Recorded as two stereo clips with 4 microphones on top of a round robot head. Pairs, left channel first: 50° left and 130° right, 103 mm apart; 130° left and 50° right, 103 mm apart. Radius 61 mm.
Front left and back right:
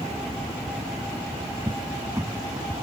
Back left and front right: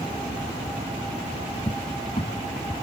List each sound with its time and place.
1.7 s a cupboard door: 165° left